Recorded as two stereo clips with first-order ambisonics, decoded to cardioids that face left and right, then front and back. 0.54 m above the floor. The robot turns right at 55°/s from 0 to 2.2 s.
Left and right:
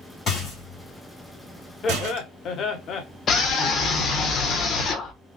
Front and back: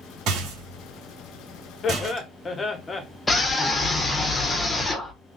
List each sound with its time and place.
0.3 s a rattle: 150° left, 2.5 m; by 2.3 s 105° right, 2.5 m
1.8 s laughter: 45° left, 0.8 m; by 3.0 s 65° left, 0.8 m
3.3 s a scream: 70° left, 0.9 m